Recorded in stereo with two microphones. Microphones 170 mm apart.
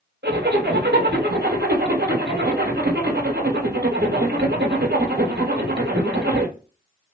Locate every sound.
0.2 s a zipper: 85° right, 1.5 m